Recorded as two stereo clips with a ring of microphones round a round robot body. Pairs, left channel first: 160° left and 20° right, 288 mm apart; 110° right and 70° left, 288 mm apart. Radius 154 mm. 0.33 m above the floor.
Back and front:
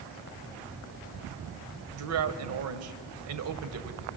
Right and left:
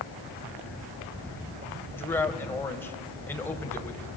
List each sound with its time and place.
1.9 s a man speaking: 30° right, 2 m